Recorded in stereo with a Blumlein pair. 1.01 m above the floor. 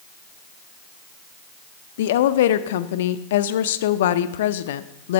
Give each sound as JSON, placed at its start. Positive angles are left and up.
{"t": 2.0, "sound": "a woman speaking", "azimuth_deg": 55, "distance_m": 0.5}